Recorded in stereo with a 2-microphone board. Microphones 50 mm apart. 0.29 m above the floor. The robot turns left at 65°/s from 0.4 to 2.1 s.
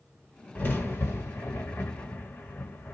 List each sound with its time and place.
0.6 s a crack: 35° left (ahead or behind), 1.5 m; by 3.0 s 30° left (ahead or behind), 1.5 m